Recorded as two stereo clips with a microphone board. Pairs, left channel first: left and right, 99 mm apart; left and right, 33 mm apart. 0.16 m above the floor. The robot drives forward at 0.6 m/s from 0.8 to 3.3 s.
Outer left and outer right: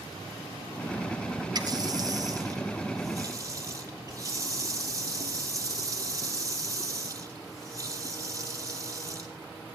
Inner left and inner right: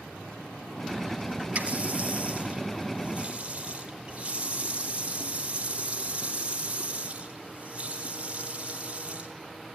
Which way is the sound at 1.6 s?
45° right (ahead or behind).